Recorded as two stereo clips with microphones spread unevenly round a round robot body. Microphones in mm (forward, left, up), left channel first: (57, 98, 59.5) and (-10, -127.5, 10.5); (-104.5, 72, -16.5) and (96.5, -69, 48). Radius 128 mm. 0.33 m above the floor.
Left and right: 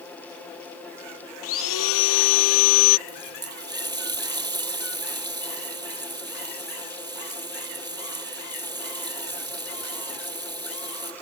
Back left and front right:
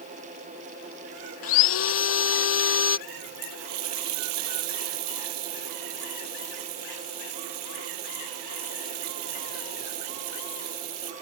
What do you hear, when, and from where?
1.4 s sawing: 110° left
3.1 s a running tap: 30° right